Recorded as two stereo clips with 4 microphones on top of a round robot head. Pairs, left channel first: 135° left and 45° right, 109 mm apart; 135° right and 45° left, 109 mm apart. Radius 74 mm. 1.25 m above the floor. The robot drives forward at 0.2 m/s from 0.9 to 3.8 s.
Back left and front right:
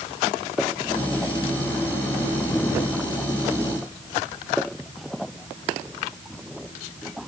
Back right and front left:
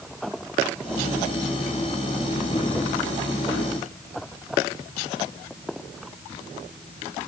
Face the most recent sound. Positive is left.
No sound to turn to.